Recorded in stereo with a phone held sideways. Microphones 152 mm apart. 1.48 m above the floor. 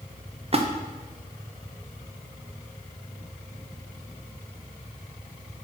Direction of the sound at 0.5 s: 40° right (ahead or behind).